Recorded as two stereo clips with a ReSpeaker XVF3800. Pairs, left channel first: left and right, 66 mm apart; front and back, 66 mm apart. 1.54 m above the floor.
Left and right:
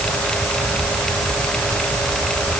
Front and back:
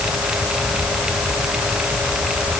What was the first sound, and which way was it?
Only background noise.